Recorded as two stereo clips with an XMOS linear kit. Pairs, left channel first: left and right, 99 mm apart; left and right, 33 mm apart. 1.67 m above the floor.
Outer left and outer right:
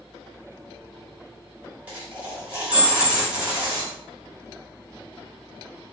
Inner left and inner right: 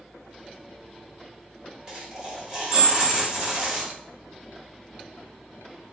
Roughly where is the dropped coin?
Centre.